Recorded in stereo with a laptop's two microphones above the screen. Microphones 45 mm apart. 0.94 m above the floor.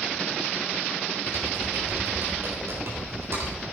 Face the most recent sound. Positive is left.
turn(degrees=-70)  # may be behind; listen again after turning